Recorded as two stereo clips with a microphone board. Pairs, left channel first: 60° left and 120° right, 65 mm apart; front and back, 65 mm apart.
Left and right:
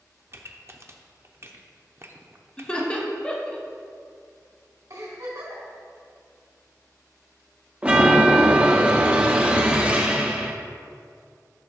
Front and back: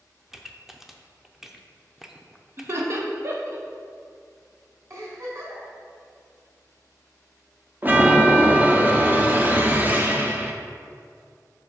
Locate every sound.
0.3 s a pop: 95° right, 0.6 m
2.6 s laughter: 135° left, 1.0 m
4.9 s a giggle: 140° right, 3 m
7.8 s a chime: 165° right, 0.8 m